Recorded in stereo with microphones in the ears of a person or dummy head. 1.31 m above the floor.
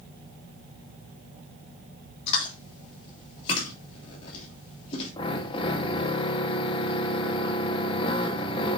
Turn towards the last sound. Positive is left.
turn(degrees=30)  # may be behind; listen again after turning